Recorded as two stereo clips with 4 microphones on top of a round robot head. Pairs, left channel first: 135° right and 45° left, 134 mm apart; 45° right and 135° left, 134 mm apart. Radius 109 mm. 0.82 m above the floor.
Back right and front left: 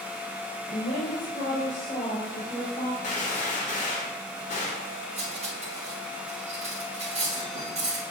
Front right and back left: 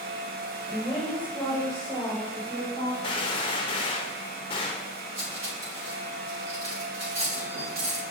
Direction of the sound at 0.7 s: 140° right.